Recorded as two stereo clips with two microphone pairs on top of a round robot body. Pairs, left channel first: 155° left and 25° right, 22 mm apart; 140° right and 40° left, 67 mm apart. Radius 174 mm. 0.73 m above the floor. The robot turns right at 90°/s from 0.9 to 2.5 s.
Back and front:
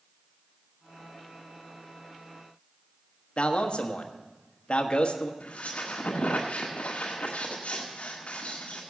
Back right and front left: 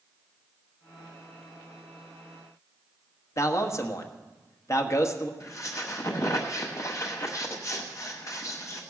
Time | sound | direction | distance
3.4 | a man speaking | 165° right | 1.4 m
5.4 | a squeak | straight behind | 1.2 m